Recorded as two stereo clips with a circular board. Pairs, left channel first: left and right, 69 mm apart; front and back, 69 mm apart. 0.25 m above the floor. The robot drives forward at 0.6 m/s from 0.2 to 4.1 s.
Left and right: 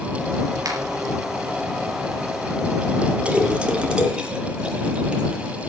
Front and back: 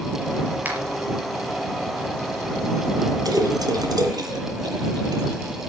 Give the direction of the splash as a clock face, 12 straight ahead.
5 o'clock.